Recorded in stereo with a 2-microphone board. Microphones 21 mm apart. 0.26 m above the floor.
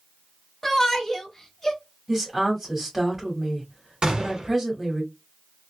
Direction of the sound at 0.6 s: 10° left (ahead or behind).